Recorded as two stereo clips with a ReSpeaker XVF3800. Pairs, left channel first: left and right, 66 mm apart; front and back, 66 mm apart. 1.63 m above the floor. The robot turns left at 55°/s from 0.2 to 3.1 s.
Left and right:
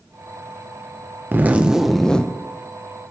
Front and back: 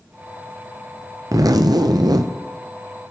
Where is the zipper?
145° right, 0.6 m; by 2.3 s 160° left, 0.6 m.